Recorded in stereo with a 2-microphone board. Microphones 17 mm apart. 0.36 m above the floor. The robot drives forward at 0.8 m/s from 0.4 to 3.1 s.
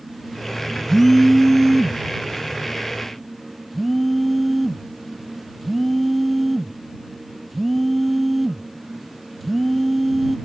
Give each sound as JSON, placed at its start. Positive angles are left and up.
{"t": 0.9, "sound": "a phone buzzing", "side_deg": 25}